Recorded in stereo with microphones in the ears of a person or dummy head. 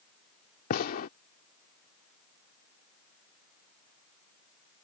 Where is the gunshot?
55° left (ahead or behind).